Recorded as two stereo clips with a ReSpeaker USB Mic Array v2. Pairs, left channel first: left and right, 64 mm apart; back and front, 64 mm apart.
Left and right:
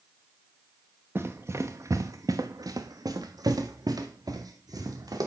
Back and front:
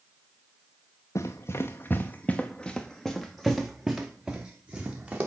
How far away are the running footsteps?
About 1.1 m.